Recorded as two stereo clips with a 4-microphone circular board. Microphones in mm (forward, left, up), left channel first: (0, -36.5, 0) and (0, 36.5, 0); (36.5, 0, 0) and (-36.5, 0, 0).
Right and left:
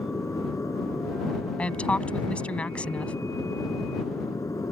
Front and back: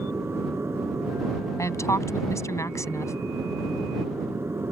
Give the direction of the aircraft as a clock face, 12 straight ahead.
4 o'clock.